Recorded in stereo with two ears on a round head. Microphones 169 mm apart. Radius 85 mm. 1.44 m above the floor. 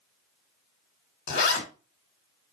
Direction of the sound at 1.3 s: 60° left (ahead or behind).